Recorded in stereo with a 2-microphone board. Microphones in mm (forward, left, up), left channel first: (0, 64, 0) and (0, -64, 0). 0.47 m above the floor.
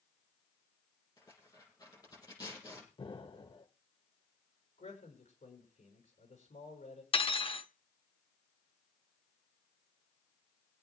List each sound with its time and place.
1.2 s tearing paper: 30° left (ahead or behind), 6.5 m
3.0 s an explosion: 40° left (ahead or behind), 1.1 m
4.8 s a man speaking: 75° left (ahead or behind), 5 m
7.1 s cutlery clinking: 45° left (ahead or behind), 0.6 m